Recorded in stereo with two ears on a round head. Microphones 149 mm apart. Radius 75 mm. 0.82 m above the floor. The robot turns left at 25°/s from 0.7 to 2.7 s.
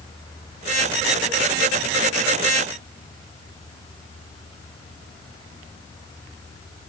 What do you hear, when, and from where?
Only background noise.